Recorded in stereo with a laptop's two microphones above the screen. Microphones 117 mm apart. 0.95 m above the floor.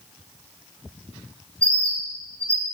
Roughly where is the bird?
Centre.